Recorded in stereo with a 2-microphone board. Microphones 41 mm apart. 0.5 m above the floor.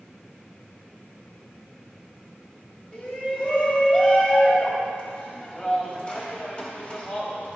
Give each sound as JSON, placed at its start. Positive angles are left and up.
{"t": 2.9, "sound": "a shout", "side_deg": 25, "distance_m": 3.5}